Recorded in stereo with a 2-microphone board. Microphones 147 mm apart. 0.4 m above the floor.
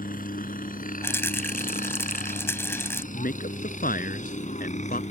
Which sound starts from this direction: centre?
A rattle, at 1.0 s.